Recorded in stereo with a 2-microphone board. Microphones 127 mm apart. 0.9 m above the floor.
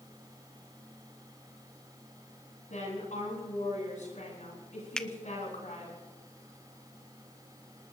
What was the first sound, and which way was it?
A woman speaking, 75° left (ahead or behind).